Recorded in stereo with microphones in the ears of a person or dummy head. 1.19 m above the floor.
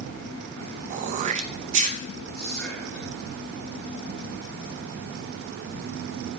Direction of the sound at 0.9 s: 35° right (ahead or behind).